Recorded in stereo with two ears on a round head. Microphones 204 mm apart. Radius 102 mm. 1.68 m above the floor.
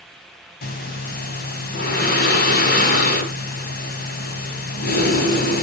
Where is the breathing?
40° left (ahead or behind), 2 m.